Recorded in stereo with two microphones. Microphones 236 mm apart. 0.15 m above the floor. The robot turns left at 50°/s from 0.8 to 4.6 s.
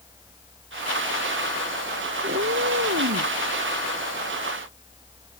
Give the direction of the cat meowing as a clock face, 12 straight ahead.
2 o'clock.